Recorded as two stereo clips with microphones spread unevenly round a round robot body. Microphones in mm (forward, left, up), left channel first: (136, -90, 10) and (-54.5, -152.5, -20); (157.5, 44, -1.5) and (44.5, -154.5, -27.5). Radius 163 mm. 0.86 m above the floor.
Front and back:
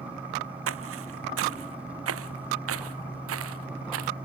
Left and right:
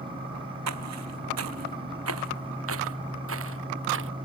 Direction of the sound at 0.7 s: 160° right.